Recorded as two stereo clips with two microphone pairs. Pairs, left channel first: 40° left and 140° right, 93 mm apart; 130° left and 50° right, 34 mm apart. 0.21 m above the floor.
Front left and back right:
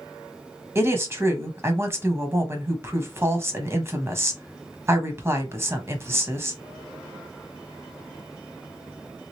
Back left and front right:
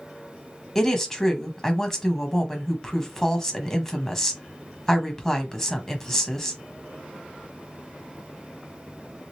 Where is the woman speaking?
170° right, 1.1 m.